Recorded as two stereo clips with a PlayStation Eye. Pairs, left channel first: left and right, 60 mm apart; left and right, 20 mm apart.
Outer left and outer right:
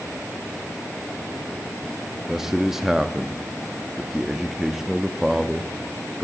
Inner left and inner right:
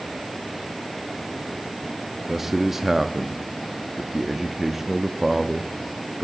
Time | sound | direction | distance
2.3 | a man speaking | 10° right (ahead or behind) | 0.6 m